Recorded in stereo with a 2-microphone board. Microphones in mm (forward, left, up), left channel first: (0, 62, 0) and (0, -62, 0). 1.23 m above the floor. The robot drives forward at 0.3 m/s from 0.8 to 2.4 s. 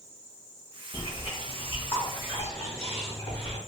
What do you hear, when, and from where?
0.9 s chewing: 45° left (ahead or behind), 2 m; by 3.6 s 50° left (ahead or behind), 1.8 m